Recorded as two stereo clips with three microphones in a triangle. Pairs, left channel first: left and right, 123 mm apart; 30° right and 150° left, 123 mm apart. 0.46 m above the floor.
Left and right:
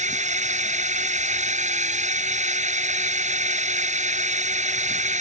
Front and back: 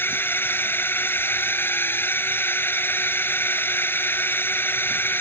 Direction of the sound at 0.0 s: 105° right.